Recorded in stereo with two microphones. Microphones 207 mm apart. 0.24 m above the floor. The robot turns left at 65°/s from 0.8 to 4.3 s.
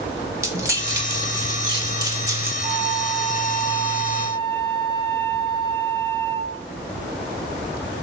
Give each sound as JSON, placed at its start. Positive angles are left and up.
{"t": 0.4, "sound": "keys jangling", "side_deg": -15, "distance_m": 0.6}
{"t": 2.6, "sound": "a flute", "azimuth_deg": -130, "distance_m": 1.2}